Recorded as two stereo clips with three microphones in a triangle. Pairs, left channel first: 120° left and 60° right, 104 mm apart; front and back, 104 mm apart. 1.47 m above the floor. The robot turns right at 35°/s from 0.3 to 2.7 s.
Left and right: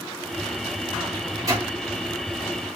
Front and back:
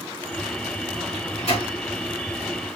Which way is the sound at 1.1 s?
15° right.